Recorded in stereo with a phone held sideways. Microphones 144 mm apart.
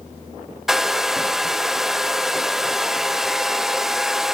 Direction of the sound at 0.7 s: 5° right (ahead or behind).